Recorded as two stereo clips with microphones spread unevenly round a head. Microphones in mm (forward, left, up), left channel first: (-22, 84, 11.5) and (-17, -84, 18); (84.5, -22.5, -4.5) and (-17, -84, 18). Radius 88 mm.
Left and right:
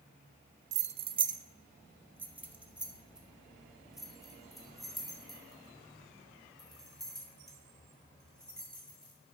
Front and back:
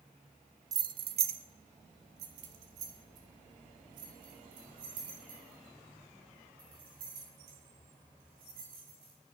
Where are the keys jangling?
115° right, 0.5 m; by 9.1 s straight behind, 5.5 m.